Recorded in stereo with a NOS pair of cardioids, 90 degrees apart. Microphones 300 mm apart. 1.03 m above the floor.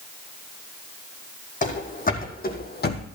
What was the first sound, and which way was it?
Running footsteps, 25° left.